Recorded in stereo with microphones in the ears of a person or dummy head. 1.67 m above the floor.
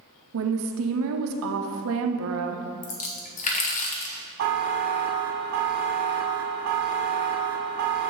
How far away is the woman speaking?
About 0.7 m.